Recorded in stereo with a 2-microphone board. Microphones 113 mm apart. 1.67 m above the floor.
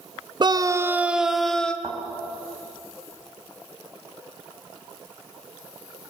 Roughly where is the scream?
Right.